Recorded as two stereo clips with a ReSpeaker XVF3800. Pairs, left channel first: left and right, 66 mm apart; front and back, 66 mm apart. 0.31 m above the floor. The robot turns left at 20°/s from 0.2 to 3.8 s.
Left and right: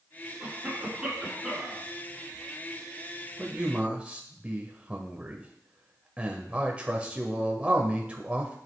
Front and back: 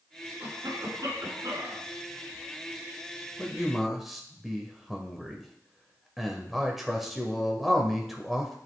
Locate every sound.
0.4 s a cough: 150° right, 4 m; by 1.9 s straight behind, 4 m
3.4 s a man speaking: 90° right, 0.9 m; by 8.6 s 100° right, 0.9 m